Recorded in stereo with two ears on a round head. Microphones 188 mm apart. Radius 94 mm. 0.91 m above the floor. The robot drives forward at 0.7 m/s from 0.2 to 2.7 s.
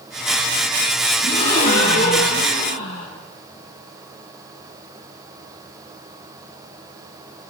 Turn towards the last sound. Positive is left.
turn(degrees=25)  # may be behind; listen again after turning